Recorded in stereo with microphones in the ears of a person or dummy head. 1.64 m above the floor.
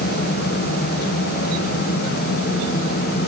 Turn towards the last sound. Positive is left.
No sound to turn to.